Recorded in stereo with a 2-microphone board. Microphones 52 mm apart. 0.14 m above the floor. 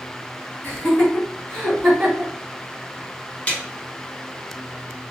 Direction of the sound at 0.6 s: 35° left (ahead or behind).